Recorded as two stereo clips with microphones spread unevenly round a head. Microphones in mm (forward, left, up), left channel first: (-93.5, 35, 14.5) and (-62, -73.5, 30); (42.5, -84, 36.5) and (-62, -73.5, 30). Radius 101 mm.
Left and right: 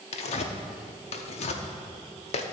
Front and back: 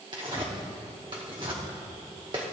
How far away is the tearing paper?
About 0.7 m.